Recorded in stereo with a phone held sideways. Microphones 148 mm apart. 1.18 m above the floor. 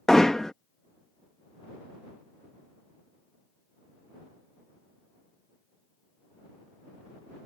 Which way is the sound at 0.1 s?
5° left (ahead or behind).